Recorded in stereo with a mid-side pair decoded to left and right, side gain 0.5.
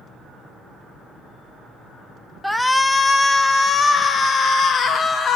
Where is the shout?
Straight ahead, 1.0 m; by 5.4 s 50° left, 2.5 m.